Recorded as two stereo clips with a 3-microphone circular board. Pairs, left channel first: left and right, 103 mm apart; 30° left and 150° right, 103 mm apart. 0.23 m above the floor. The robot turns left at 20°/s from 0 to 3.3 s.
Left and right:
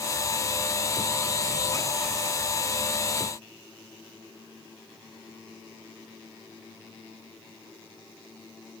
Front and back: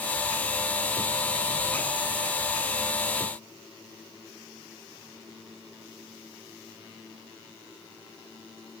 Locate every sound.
Only background noise.